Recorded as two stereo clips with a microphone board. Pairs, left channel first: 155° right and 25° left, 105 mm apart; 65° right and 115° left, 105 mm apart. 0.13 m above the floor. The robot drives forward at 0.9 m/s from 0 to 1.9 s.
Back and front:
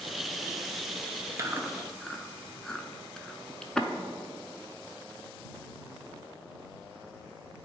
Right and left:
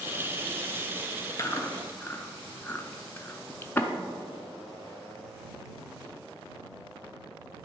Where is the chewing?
25° right, 0.7 m; by 3.9 s 85° right, 0.5 m.